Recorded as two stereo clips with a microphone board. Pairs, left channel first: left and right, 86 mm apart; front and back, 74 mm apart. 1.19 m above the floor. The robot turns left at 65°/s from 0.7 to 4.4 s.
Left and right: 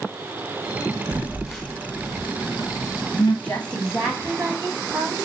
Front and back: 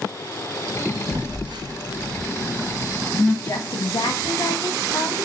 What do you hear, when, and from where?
1.1 s a phone buzzing: 155° right, 1.2 m; by 3.3 s 60° left, 1.2 m
3.4 s a woman speaking: 30° left, 0.8 m; by 5.3 s 35° right, 0.8 m